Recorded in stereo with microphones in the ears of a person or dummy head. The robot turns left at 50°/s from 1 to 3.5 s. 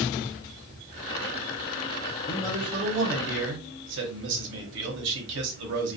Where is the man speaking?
10° right, 0.8 m; by 6.0 s 70° right, 0.8 m.